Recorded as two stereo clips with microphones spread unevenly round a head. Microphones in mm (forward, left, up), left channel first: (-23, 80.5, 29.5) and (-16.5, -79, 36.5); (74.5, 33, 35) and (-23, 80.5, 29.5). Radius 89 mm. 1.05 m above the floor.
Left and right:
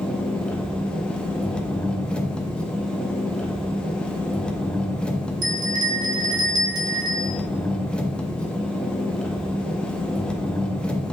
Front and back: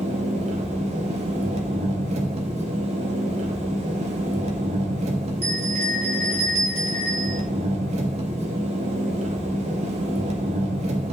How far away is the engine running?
About 1.0 m.